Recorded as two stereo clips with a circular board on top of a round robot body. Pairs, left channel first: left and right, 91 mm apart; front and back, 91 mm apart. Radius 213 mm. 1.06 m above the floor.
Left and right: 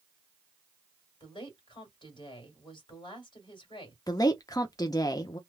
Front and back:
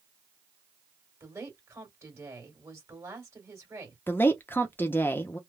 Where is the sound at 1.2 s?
120° left, 1.9 m.